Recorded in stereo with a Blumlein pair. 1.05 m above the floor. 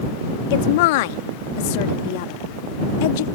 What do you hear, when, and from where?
0.5 s a woman speaking: 50° left